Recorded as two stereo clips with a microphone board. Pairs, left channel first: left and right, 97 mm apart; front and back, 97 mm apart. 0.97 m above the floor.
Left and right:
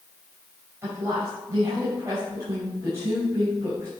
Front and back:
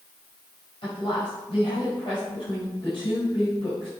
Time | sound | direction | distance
0.8 | a woman speaking | 25° right | 5 m